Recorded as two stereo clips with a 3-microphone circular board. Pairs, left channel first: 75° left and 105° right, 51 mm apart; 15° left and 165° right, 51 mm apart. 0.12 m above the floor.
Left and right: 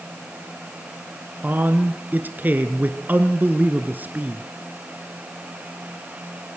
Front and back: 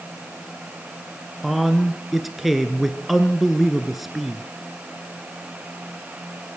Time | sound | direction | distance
1.4 | a man speaking | 80° right | 1.3 m